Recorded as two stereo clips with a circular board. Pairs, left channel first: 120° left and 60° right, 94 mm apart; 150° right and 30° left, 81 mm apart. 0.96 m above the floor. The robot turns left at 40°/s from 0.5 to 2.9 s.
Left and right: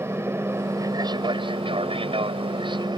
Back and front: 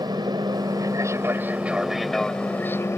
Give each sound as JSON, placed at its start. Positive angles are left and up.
{"t": 0.0, "sound": "an aircraft", "azimuth_deg": 0}